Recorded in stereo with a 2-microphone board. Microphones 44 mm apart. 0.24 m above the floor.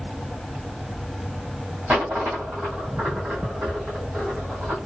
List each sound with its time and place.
1.9 s a dropped coin: 30° right (ahead or behind), 1.6 m